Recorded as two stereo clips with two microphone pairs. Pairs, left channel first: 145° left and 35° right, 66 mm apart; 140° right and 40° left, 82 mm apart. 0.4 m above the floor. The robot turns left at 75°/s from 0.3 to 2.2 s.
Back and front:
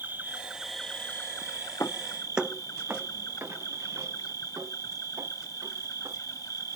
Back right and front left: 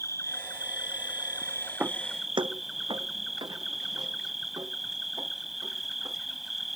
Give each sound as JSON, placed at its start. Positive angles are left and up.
{"t": 0.0, "sound": "an insect", "azimuth_deg": -90}
{"t": 1.8, "sound": "footsteps", "azimuth_deg": 110}